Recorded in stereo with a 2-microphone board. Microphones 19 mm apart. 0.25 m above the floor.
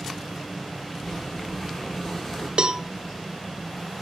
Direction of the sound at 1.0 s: 25° left (ahead or behind).